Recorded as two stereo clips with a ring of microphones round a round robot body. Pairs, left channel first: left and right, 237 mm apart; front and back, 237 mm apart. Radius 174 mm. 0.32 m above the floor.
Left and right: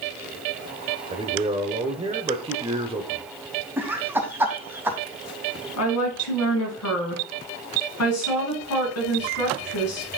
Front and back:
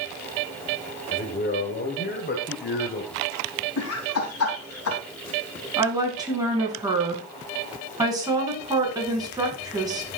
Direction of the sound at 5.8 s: 105° left.